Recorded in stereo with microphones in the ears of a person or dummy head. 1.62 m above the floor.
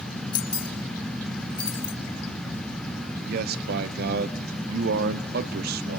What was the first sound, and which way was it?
Keys jangling, 25° left (ahead or behind).